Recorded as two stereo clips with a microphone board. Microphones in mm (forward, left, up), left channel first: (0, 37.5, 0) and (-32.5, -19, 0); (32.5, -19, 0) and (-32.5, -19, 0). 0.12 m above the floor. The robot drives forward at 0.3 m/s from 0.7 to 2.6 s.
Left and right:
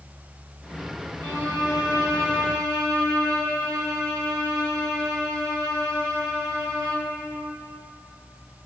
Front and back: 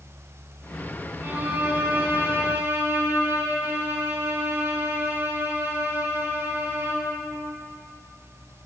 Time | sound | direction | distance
1.2 | a violin | 135° right | 3 m